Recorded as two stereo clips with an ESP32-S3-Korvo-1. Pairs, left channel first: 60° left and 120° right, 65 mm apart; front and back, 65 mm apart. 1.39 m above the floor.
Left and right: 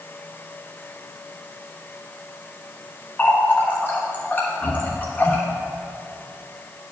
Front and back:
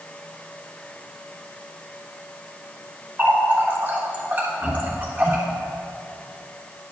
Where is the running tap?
120° left, 1.2 m.